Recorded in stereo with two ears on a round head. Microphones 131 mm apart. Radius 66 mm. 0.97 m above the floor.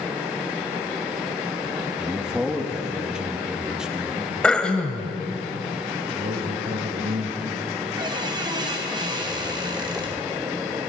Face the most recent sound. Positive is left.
turn(degrees=-30)  # may be behind; listen again after turning